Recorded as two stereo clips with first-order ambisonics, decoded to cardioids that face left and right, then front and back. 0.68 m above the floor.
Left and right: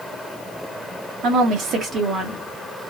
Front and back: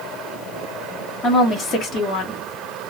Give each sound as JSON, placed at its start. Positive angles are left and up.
{"t": 1.2, "sound": "a woman speaking", "azimuth_deg": -70, "distance_m": 1.1}